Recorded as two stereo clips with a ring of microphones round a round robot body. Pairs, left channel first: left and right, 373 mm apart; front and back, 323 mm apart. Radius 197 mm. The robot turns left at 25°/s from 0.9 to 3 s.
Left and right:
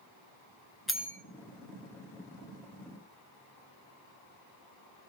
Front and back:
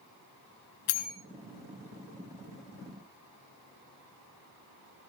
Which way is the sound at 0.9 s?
Straight ahead.